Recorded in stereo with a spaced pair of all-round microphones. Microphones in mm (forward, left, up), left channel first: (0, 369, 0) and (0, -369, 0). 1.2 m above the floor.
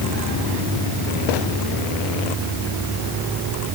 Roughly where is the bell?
I don't hear a bell.